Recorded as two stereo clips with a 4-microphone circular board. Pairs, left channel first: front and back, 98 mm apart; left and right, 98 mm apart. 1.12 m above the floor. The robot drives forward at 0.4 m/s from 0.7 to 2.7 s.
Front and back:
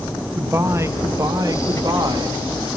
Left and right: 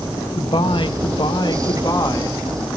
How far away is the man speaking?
About 1.3 m.